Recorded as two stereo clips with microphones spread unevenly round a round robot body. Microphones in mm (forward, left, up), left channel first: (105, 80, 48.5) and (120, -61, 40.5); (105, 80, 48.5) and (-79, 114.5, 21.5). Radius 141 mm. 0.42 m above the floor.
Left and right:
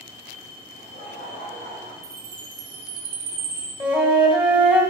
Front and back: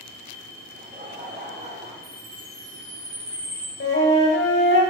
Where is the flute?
10° right, 2 m.